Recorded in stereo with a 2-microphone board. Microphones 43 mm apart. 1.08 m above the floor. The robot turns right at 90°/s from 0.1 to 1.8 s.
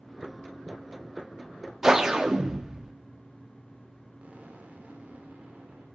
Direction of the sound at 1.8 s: 10° right (ahead or behind).